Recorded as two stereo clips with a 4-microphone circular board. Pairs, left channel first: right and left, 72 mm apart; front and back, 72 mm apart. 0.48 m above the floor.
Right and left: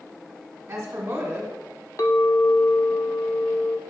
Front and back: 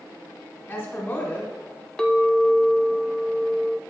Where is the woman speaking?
50° left, 1.5 m.